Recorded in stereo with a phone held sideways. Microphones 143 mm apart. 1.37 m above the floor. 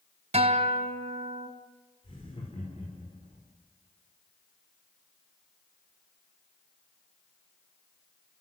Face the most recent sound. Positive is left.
turn(degrees=40)  # may be behind; listen again after turning